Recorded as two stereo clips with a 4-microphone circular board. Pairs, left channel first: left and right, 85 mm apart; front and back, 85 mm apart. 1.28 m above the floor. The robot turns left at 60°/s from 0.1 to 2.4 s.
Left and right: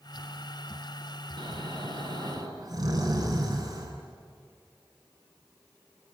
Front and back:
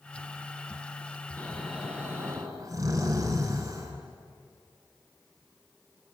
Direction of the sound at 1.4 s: 65° right.